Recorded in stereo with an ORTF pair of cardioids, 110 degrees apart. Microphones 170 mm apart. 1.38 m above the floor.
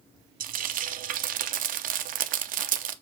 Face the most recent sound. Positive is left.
turn(degrees=-55)